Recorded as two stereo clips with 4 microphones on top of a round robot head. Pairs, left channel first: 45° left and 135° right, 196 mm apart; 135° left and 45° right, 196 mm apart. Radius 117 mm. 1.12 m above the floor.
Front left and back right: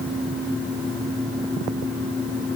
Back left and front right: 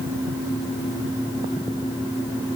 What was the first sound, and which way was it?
Only background noise.